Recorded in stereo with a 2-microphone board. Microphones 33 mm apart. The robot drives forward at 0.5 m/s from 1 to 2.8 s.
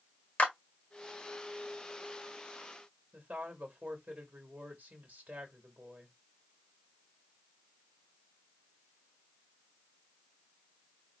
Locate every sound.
0.4 s a clap: 40° left (ahead or behind), 1.6 m
3.1 s a woman speaking: 45° right (ahead or behind), 1.8 m